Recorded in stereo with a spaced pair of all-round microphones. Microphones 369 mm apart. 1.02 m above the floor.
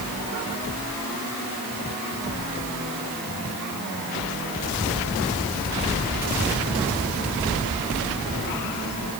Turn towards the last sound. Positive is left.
No sound to turn to.